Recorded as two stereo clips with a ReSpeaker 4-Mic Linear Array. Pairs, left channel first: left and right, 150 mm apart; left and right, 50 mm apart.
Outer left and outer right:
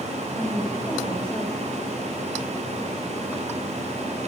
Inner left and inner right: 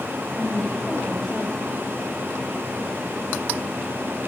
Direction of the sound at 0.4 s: 20° left (ahead or behind).